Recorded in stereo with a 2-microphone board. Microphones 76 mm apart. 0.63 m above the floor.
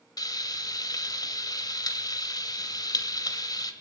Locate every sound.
0.2 s frying: 55° left (ahead or behind), 1.8 m